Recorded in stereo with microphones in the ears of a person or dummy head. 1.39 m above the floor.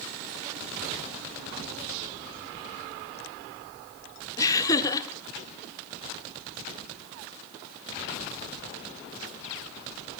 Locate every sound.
4.4 s laughter: 15° left (ahead or behind), 0.8 m